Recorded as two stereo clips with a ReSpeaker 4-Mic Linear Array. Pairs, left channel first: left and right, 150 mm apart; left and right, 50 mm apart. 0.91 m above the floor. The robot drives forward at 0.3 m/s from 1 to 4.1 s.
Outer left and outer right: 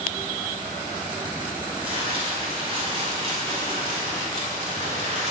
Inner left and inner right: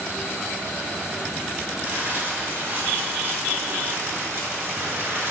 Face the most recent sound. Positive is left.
turn(degrees=-50)  # may be behind; listen again after turning